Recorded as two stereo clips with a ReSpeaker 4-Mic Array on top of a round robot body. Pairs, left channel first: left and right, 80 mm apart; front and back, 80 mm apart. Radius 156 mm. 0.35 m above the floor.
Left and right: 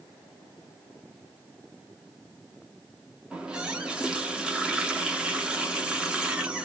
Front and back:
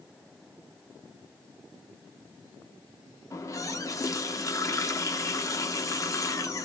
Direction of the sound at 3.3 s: 15° right.